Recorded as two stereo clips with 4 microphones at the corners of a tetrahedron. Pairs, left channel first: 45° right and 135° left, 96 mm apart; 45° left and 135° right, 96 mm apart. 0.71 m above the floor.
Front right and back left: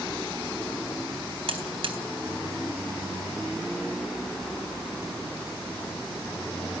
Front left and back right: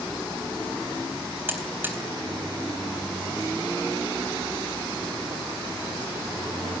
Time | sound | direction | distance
1.5 | a buzzer | 155° left | 3.5 m